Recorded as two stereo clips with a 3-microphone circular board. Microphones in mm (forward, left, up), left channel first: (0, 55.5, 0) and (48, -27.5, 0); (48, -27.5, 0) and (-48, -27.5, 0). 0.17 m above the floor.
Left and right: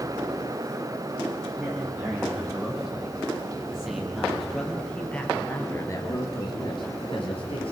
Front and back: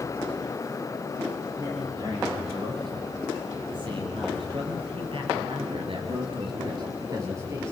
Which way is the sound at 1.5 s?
135° right.